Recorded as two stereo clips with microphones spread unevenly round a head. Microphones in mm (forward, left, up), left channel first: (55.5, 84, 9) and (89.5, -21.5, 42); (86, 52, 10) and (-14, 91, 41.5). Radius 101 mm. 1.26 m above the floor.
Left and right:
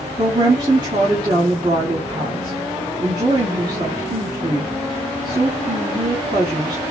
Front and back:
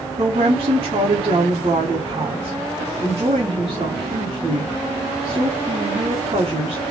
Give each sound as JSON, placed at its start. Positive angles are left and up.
{"t": 0.2, "sound": "a woman speaking", "azimuth_deg": -140, "distance_m": 1.3}